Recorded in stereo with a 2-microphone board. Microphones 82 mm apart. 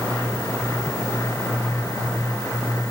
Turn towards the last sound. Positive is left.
No sound to turn to.